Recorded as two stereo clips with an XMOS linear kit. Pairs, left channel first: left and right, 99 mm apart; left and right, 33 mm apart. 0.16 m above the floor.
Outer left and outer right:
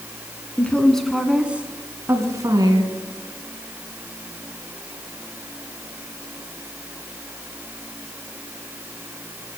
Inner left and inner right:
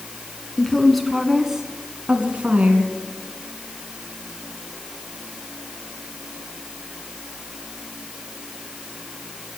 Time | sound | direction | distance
0.6 | a woman speaking | 15° left (ahead or behind) | 1.7 m